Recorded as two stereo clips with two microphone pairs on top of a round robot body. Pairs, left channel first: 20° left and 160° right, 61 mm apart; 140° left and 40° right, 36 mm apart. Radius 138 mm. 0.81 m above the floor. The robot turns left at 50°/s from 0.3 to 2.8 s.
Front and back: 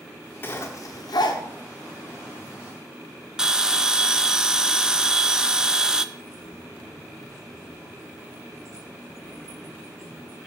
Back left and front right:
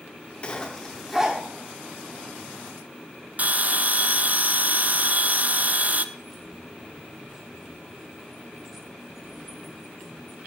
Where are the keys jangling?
125° right, 4 m.